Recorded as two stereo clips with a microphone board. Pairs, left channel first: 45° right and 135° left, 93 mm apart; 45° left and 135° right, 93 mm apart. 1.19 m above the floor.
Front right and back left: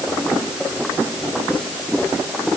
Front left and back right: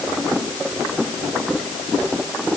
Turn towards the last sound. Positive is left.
No sound to turn to.